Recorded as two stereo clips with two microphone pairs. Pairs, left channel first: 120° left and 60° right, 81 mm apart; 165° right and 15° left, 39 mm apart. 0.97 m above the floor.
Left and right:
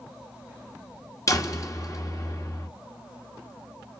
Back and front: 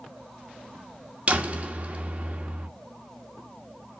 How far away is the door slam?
About 1.8 m.